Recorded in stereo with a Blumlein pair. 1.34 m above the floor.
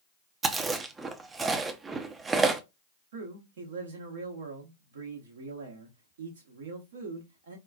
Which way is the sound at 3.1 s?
60° right.